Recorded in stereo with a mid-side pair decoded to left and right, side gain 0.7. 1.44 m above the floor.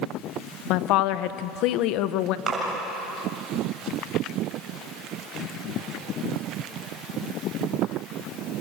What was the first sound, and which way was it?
A woman speaking, 65° left.